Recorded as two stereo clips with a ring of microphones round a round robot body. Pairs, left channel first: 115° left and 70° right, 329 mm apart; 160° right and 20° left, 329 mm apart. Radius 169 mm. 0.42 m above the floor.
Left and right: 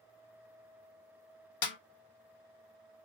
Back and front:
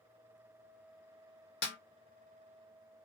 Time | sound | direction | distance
1.6 | a snare drum | 140° left | 0.7 m